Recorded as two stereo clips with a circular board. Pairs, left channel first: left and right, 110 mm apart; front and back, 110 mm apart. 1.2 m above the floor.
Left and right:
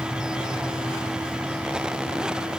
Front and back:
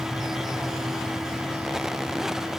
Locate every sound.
Only background noise.